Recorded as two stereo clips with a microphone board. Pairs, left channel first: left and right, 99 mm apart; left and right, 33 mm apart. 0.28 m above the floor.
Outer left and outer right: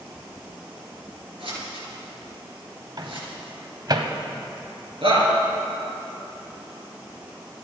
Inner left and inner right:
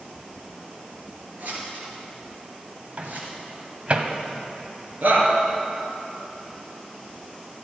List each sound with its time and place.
1.4 s scissors: 60° right (ahead or behind), 6 m
3.0 s a microwave: 45° right (ahead or behind), 1.4 m
5.0 s a shout: 65° right (ahead or behind), 5 m